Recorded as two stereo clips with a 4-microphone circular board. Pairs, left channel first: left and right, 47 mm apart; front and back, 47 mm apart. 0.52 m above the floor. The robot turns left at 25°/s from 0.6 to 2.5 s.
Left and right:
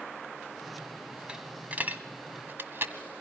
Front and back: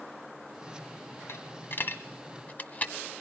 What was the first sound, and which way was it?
A dropped coin, 20° right.